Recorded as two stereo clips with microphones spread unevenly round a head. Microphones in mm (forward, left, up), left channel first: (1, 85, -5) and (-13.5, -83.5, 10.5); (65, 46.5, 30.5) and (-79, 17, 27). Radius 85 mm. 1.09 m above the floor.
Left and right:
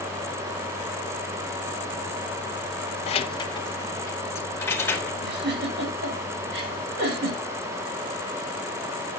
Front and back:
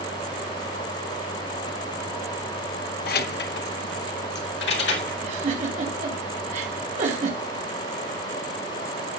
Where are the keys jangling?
30° left, 0.6 m; by 5.1 s 5° left, 2 m.